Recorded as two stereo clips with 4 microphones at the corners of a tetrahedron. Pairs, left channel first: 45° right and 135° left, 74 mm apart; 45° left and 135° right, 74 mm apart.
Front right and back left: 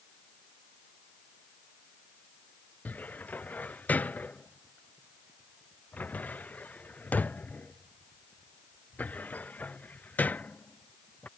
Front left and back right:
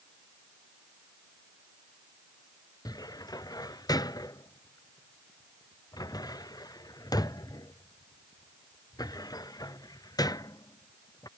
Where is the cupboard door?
25° left.